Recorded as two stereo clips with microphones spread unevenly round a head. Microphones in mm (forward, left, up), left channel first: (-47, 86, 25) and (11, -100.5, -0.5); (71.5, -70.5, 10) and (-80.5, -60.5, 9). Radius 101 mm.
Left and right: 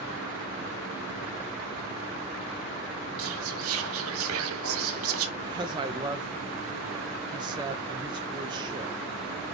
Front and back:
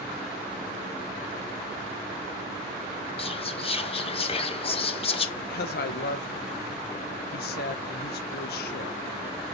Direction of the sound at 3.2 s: 55° right.